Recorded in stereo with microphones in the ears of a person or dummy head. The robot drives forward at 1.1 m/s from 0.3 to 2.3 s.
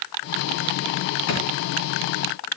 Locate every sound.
1.3 s a drawer: 65° left (ahead or behind), 4 m